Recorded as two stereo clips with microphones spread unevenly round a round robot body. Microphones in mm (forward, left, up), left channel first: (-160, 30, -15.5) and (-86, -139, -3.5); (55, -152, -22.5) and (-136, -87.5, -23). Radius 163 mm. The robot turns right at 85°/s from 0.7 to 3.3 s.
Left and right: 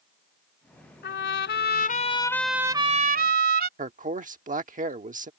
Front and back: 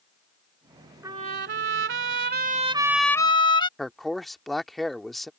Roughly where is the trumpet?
Left.